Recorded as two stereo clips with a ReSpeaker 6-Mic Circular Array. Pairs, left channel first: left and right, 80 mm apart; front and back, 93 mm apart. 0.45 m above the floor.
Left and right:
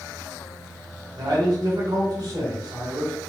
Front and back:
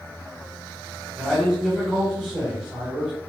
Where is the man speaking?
100° right, 1.7 m.